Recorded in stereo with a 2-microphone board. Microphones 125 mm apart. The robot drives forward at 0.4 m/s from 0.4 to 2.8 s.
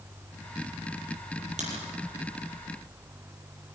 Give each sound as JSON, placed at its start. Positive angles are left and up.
{"t": 1.6, "sound": "a crack", "side_deg": -70, "distance_m": 6.5}